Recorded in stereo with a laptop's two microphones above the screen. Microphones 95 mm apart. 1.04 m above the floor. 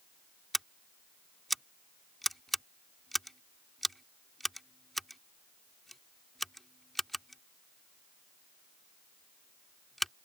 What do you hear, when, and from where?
0.5 s scissors: centre (ahead or behind)